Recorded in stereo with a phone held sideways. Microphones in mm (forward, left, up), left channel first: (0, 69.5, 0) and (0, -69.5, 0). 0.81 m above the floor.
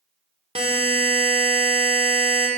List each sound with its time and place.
0.6 s a buzzer: 45° right (ahead or behind), 1.5 m